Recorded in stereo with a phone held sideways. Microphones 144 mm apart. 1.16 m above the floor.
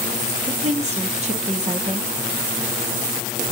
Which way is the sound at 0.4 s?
50° right (ahead or behind).